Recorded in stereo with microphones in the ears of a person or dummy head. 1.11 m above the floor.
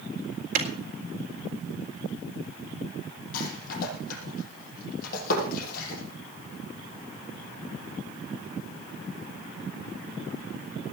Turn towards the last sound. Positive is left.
turn(degrees=50)  # may be behind; listen again after turning